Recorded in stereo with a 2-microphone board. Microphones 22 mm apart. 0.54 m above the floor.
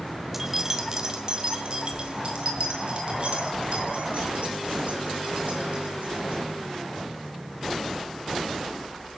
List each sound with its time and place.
0.3 s keys jangling: 10° right (ahead or behind), 1.1 m; by 6.4 s 60° right (ahead or behind), 5.5 m